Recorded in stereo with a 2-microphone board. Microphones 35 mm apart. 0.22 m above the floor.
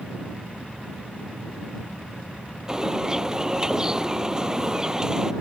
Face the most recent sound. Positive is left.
turn(degrees=-20)  # may be behind; listen again after turning